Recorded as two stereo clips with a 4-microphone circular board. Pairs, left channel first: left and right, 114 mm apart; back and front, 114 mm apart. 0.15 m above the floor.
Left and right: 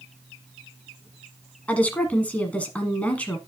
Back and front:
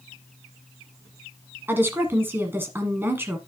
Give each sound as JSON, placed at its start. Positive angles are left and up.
{"t": 1.7, "sound": "a woman speaking", "azimuth_deg": 30, "distance_m": 1.3}